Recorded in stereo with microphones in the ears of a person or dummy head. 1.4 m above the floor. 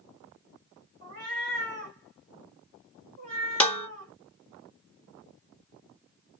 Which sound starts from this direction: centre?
Dishes clattering, at 3.6 s.